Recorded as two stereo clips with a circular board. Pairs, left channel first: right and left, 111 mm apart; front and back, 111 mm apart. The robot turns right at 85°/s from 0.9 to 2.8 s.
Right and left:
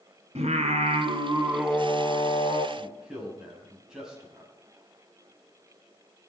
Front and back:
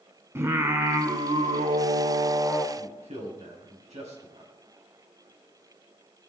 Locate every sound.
0.3 s singing: 110° left, 1.6 m; by 2.7 s 100° right, 1.6 m
2.8 s a man speaking: 170° left, 3.5 m; by 4.5 s 175° left, 3.5 m